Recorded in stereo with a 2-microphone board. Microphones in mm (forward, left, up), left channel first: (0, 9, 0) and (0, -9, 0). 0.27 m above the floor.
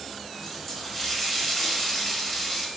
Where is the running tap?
10° left (ahead or behind), 0.6 m.